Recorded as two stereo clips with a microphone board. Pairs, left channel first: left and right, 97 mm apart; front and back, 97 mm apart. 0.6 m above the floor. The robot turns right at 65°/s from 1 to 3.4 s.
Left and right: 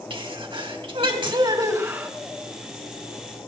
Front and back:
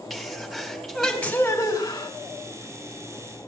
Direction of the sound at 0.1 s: 90° right.